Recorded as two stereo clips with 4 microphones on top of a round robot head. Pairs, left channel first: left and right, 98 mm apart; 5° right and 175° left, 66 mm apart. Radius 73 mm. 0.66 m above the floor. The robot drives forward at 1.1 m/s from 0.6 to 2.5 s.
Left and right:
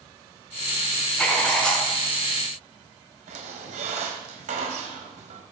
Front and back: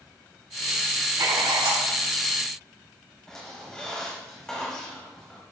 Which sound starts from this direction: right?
A squeak, at 3.3 s.